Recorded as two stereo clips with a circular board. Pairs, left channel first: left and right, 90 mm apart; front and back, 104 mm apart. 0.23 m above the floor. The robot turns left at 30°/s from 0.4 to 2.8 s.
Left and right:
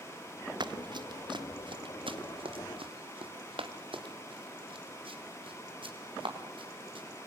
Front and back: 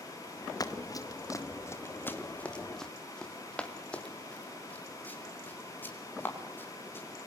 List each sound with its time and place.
0.6 s running footsteps: 55° right, 1.7 m; by 7.0 s 70° right, 7 m